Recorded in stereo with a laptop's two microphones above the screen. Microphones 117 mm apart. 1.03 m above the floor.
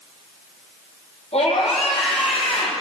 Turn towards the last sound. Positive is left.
turn(degrees=60)  # may be behind; listen again after turning